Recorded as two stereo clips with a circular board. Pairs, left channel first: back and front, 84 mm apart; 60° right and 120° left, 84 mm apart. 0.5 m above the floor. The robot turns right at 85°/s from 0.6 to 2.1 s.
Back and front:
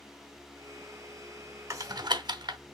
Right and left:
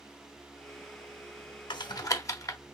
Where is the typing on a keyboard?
50° right, 0.8 m; by 2.6 s 15° right, 0.8 m.